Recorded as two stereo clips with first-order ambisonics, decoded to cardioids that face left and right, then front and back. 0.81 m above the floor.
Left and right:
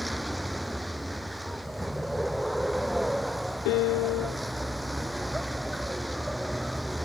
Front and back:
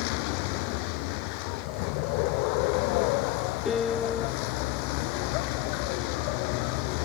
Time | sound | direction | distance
0.0 | a vehicle | 5° right | ?
3.6 | a piano | 70° left | ?